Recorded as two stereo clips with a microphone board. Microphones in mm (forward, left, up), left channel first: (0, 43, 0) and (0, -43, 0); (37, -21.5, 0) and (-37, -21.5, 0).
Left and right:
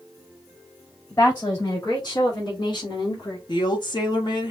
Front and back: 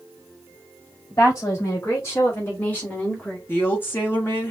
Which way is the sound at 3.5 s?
60° left.